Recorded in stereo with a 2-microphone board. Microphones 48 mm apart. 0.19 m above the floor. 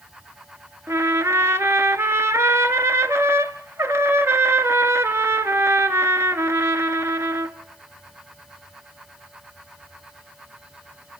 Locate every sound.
0.9 s a trumpet: 70° right (ahead or behind), 0.8 m